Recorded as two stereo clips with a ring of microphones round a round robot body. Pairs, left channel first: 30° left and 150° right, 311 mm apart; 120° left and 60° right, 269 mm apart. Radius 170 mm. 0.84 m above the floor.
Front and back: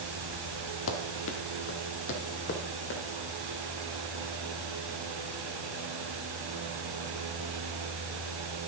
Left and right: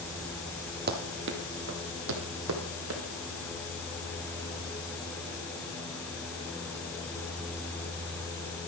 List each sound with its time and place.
0.9 s running footsteps: 15° right, 1.3 m; by 3.0 s 30° right, 2.5 m